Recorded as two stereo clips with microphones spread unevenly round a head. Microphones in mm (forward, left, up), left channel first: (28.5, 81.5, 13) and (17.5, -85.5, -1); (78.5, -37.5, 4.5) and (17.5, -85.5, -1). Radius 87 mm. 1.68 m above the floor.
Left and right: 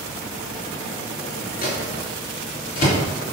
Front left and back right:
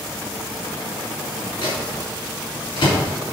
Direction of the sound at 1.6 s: 50° left.